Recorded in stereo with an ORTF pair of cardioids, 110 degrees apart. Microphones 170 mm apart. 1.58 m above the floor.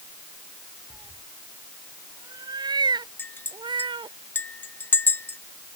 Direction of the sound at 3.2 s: 10° left.